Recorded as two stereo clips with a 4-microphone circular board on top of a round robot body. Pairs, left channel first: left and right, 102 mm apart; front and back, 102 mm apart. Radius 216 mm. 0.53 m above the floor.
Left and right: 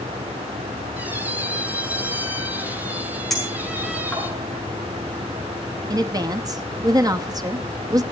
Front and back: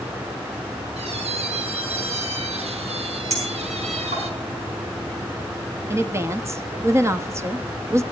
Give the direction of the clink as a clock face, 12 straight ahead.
6 o'clock.